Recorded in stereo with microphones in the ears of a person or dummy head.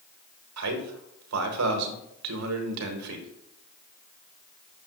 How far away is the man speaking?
About 1.2 m.